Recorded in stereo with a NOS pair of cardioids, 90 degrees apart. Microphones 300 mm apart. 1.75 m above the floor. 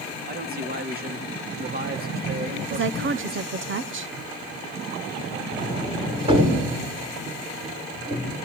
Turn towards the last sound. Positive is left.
turn(degrees=-15)